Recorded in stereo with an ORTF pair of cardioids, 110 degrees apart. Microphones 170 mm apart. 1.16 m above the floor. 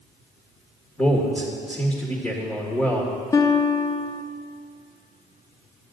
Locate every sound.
1.0 s a man speaking: 5° left, 1.5 m
3.3 s a guitar: 20° left, 0.7 m